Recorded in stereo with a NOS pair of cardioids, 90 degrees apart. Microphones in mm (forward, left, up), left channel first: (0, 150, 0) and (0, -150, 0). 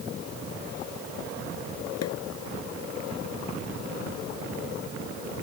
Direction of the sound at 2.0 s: 60° left.